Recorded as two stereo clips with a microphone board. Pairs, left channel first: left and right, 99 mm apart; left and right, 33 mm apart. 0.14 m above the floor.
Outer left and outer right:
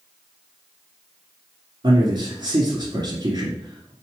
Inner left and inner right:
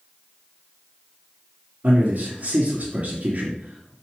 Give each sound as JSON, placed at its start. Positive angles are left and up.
{"t": 1.8, "sound": "a man speaking", "side_deg": -50, "distance_m": 2.0}